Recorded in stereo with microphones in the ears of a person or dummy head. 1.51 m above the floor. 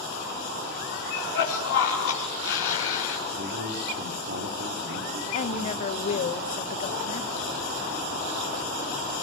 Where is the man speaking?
60° right (ahead or behind), 4.5 m.